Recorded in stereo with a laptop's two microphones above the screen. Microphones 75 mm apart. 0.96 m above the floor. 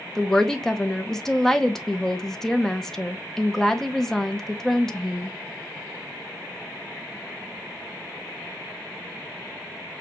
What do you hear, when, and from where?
0.1 s a woman speaking: 5° left (ahead or behind), 0.9 m